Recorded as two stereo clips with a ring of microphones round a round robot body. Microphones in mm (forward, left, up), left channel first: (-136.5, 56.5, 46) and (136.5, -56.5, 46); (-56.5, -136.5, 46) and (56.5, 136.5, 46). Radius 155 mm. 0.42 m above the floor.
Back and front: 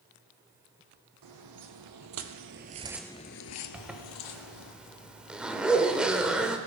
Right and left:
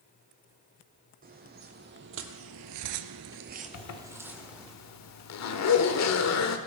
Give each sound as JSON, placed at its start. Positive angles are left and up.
{"t": 1.2, "sound": "footsteps", "azimuth_deg": 5, "distance_m": 1.8}
{"t": 3.7, "sound": "a zipper", "azimuth_deg": -110, "distance_m": 1.0}